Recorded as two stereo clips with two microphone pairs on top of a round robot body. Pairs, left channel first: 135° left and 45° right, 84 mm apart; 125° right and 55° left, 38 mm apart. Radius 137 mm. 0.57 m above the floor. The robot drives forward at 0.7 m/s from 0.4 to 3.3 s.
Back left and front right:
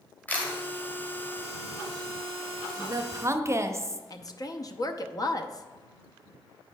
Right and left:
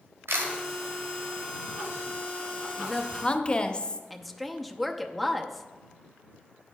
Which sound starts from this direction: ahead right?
A woman speaking, at 2.8 s.